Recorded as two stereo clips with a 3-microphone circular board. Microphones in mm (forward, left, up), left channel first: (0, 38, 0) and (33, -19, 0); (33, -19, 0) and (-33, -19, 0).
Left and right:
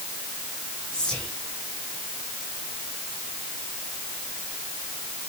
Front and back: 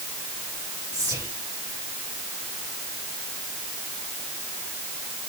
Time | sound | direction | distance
0.9 | whispering | 160° right | 3.5 m